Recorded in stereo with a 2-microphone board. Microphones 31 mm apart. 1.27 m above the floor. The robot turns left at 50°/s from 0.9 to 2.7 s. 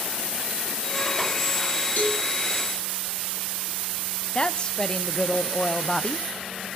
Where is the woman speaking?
30° left (ahead or behind), 0.7 m.